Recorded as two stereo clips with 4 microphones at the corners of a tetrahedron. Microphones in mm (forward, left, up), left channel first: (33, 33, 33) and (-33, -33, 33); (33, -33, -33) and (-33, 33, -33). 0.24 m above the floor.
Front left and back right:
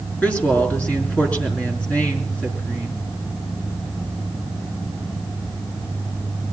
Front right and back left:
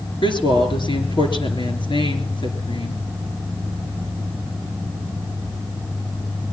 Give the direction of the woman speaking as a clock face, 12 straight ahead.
1 o'clock.